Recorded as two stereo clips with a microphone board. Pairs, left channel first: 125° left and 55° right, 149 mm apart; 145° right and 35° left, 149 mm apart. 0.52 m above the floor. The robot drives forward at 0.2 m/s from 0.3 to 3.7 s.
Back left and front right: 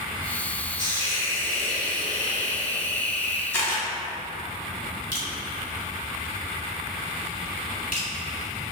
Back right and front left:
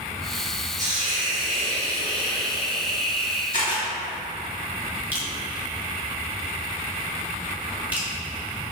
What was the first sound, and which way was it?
A hiss, 70° left.